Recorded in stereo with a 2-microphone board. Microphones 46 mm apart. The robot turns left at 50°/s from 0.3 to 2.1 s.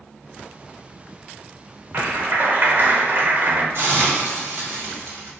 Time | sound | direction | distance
1.9 | a clap | 50° right (ahead or behind) | 0.6 m
3.7 | a hiss | 65° right (ahead or behind) | 1.4 m